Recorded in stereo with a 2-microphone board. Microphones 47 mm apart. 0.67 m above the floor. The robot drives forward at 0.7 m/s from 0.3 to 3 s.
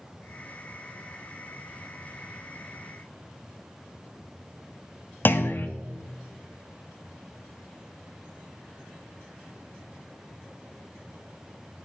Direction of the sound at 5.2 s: 45° left (ahead or behind).